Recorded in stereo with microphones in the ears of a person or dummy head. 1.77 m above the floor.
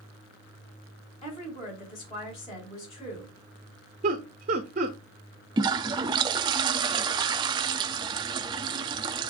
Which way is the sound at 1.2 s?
30° left (ahead or behind).